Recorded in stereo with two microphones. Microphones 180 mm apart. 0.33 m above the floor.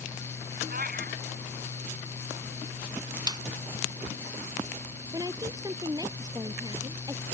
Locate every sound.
0.7 s a cat meowing: 55° right (ahead or behind)
3.3 s a snare drum: 25° right (ahead or behind)
5.1 s a woman speaking: 20° right (ahead or behind)